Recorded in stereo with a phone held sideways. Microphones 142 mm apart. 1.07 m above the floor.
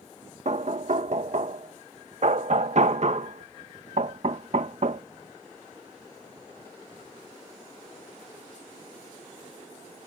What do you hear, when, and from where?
0.5 s knocking: 55° right (ahead or behind)